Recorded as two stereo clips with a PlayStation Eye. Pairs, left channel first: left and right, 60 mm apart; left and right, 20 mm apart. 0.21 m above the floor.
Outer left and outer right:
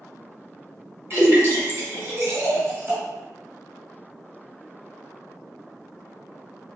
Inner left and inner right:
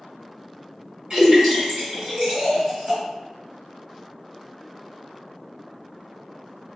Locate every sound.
1.1 s a splash: 35° right (ahead or behind), 2.0 m